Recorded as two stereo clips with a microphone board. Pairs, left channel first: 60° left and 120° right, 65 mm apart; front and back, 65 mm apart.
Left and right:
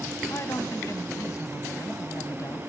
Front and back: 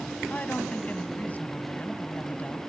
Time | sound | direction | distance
0.3 | a woman speaking | 55° left | 1.4 m